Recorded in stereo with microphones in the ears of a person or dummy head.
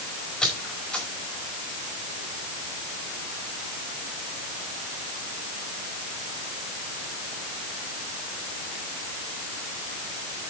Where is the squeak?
5° left (ahead or behind), 4.5 m.